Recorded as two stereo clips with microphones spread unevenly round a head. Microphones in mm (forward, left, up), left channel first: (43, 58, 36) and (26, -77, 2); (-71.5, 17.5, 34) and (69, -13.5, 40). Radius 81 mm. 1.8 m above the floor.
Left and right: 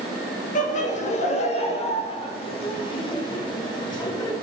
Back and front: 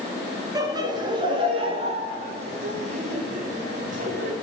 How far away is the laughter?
About 3 m.